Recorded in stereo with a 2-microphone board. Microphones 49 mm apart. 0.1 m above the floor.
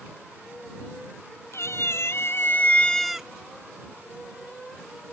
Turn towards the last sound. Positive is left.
turn(degrees=-20)  # may be behind; listen again after turning